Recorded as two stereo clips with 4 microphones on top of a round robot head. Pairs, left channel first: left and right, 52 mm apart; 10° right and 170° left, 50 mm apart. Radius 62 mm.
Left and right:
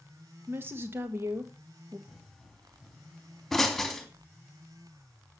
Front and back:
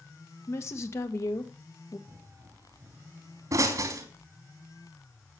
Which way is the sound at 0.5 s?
40° right.